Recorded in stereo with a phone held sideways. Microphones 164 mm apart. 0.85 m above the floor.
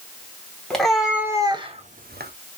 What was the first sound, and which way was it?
A cat meowing, 5° left (ahead or behind).